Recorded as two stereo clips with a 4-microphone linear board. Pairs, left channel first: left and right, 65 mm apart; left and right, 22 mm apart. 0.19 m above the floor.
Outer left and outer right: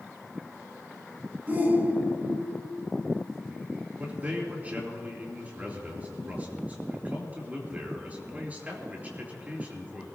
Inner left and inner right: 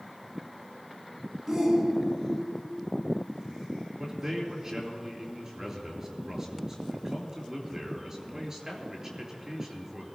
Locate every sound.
1.5 s a shout: 30° right (ahead or behind), 1.7 m
4.0 s a man speaking: 25° right (ahead or behind), 3.5 m